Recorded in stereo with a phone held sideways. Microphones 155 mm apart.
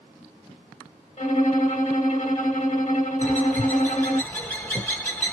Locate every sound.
1.2 s a violin: 55° left (ahead or behind), 1.0 m
3.2 s a bird: 15° left (ahead or behind), 1.1 m